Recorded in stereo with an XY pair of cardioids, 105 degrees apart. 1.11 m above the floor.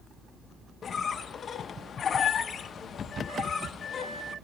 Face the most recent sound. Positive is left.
turn(degrees=50)